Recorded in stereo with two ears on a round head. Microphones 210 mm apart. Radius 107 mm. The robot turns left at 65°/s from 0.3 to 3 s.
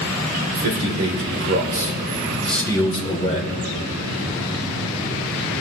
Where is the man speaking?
55° right, 3.5 m; by 3.6 s 145° left, 3.5 m.